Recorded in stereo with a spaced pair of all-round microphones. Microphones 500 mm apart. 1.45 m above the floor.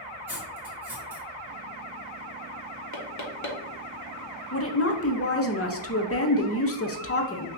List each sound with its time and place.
0.3 s cutlery clinking: 5° right (ahead or behind), 1.9 m
2.9 s knocking: 35° left (ahead or behind), 0.7 m
4.5 s a woman speaking: 30° left (ahead or behind), 0.5 m